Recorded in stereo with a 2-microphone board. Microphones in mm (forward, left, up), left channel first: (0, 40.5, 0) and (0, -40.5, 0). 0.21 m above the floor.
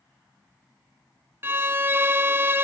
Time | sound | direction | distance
1.4 | a violin | 30° right (ahead or behind) | 0.8 m